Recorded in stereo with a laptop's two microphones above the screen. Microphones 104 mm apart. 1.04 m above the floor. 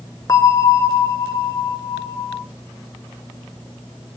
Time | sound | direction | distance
0.3 | a bell | 35° left (ahead or behind) | 0.6 m